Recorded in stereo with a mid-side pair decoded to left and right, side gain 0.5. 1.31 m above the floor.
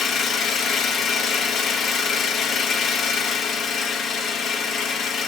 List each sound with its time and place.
0.0 s an engine running: 55° left, 1.2 m